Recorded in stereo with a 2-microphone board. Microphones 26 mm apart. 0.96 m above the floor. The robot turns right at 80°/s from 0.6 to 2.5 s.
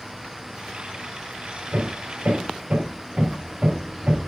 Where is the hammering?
70° right (ahead or behind), 3 m; by 4.2 s 50° right (ahead or behind), 3 m.